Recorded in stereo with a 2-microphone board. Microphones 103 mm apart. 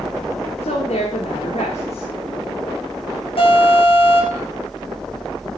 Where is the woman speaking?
80° left, 7.5 m.